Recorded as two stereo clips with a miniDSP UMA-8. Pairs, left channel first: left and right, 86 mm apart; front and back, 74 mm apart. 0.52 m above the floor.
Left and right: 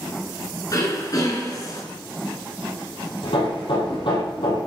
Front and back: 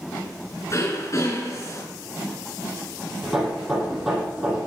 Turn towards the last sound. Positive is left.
turn(degrees=90)